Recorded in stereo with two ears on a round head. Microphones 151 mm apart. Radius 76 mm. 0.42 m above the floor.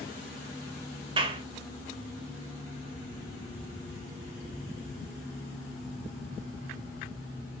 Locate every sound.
1.2 s a clap: 30° right (ahead or behind), 1.3 m